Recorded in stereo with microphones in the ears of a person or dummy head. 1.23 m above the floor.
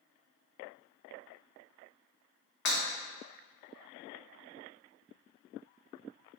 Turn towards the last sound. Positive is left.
turn(degrees=65)  # may be behind; listen again after turning